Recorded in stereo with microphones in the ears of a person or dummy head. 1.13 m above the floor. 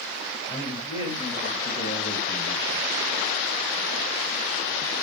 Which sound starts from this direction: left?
A man speaking, at 0.5 s.